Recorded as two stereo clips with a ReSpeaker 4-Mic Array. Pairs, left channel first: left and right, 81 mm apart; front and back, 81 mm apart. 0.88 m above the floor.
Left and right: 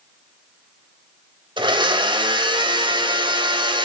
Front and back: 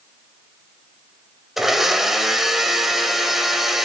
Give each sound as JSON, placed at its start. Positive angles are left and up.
{"t": 1.6, "sound": "a blender", "azimuth_deg": -95, "distance_m": 2.0}